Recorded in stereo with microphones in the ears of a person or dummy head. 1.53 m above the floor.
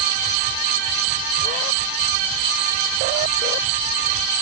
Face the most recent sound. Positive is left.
No sound to turn to.